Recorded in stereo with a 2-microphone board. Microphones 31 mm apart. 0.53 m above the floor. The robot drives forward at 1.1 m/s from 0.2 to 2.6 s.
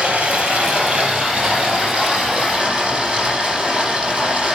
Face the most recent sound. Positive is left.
turn(degrees=-25)  # may be behind; listen again after turning